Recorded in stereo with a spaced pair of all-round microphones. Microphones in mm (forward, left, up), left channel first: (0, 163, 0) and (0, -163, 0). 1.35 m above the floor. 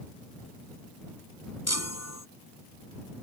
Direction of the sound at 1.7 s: 50° left (ahead or behind).